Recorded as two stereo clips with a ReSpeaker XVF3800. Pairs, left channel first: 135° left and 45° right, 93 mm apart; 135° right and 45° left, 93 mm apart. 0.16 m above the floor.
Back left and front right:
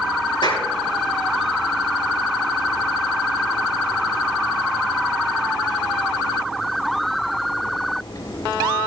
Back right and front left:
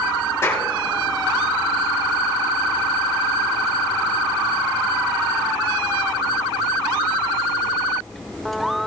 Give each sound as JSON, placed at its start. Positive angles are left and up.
{"t": 0.4, "sound": "a clap", "azimuth_deg": 160, "distance_m": 7.5}